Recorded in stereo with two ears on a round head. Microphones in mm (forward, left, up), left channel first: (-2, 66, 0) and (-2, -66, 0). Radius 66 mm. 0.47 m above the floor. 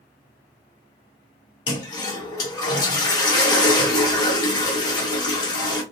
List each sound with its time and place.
1.7 s a toilet flushing: 25° left (ahead or behind), 1.1 m